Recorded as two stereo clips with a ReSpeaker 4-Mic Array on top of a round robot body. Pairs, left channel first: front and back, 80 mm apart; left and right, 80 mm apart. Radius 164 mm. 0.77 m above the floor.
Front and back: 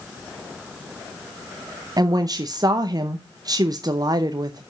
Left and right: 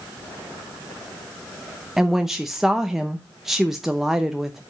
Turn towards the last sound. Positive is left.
turn(degrees=-175)